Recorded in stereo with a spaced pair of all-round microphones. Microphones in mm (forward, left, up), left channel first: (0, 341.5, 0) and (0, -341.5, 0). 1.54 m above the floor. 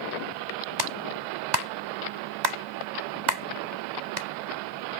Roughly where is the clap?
Right.